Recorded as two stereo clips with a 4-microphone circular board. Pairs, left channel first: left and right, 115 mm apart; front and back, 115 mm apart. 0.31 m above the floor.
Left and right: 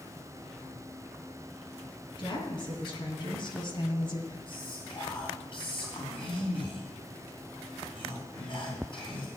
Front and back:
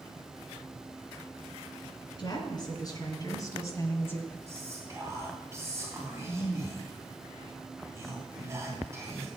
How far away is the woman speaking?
About 3.5 m.